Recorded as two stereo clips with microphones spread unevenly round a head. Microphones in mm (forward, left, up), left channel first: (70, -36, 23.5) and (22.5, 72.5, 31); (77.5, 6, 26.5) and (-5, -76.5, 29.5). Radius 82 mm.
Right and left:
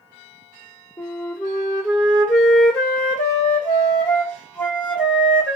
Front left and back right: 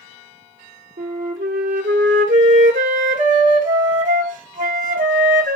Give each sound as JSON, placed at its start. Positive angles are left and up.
{"t": 1.0, "sound": "a flute", "azimuth_deg": -150, "distance_m": 0.9}